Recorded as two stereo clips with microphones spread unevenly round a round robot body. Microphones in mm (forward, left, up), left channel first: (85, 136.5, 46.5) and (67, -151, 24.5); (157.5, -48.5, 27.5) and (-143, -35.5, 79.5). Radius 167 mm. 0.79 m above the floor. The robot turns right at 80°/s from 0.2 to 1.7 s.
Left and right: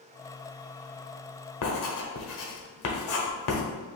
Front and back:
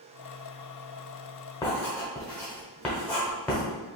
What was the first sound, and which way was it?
Writing, 80° left.